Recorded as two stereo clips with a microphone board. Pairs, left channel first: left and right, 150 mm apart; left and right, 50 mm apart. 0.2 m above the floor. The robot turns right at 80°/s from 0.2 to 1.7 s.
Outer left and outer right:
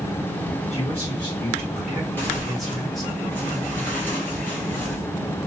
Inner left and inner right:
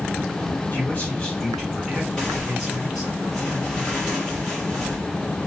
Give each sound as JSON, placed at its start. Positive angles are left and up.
{"t": 0.7, "sound": "a man speaking", "azimuth_deg": 100, "distance_m": 1.8}
{"t": 2.2, "sound": "tearing paper", "side_deg": 15, "distance_m": 2.0}